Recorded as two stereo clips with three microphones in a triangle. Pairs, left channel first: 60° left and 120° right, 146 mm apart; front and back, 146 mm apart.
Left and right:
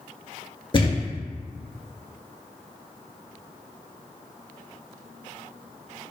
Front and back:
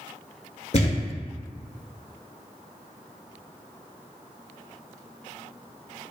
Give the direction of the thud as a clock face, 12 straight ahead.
11 o'clock.